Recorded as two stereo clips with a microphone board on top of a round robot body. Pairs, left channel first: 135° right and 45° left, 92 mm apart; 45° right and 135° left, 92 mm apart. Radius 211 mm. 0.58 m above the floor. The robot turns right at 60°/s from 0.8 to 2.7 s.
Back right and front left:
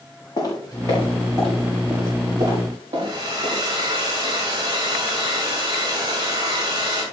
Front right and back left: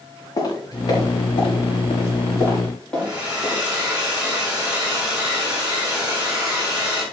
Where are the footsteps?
90° right, 6.5 m; by 4.0 s 40° left, 8 m.